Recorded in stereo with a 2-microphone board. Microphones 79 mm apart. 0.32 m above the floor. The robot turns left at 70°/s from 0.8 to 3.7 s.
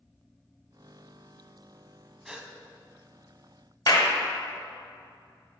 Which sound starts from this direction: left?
A clap, at 3.9 s.